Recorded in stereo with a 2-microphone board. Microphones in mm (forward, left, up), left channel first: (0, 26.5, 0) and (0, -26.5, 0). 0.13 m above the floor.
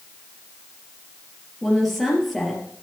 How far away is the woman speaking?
About 3 m.